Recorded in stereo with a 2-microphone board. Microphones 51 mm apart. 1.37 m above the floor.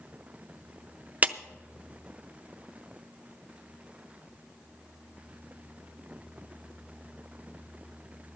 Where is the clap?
30° right (ahead or behind), 0.5 m.